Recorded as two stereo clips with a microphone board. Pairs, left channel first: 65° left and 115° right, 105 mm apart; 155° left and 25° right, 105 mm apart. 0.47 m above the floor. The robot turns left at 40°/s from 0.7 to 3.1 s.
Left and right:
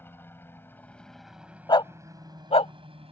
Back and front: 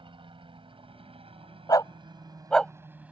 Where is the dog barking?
110° left; by 2.7 s 70° left.